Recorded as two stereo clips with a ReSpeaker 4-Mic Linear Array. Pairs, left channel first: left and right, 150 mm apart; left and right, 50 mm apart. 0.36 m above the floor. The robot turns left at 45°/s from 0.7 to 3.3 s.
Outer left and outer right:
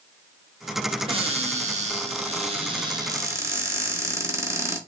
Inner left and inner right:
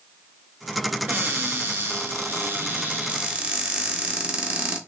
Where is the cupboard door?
55° right, 0.9 m; by 4.8 s 155° right, 0.9 m.